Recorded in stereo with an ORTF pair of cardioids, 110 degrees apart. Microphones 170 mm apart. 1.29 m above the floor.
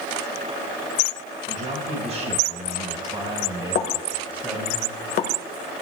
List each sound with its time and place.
1.5 s a man speaking: 50° right, 5 m; by 4.8 s 5° right, 5.5 m
3.8 s a pop: 65° left, 1.7 m